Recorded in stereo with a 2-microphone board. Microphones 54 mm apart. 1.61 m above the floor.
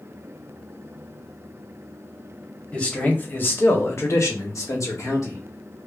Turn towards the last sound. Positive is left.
turn(degrees=70)  # may be behind; listen again after turning